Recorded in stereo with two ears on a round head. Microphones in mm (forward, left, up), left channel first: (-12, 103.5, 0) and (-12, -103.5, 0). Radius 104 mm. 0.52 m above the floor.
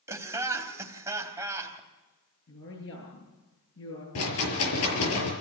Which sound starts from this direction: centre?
Laughter, at 0.1 s.